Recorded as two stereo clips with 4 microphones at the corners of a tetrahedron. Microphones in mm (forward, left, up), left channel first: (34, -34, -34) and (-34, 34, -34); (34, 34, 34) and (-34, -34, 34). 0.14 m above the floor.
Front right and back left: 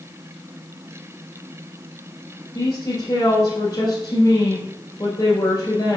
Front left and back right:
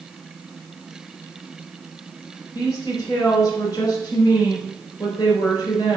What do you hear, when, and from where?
2.5 s a woman speaking: straight ahead, 2.5 m